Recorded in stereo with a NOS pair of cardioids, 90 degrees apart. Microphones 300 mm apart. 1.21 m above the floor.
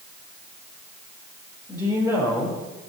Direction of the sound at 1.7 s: 15° left.